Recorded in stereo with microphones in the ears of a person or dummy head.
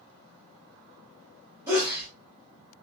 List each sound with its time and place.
1.7 s a sneeze: 10° right (ahead or behind), 1.3 m